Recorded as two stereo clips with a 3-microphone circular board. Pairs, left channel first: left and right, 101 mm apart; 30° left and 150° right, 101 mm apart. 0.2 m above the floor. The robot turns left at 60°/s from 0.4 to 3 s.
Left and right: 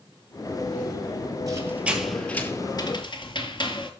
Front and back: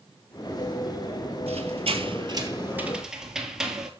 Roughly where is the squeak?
Behind right.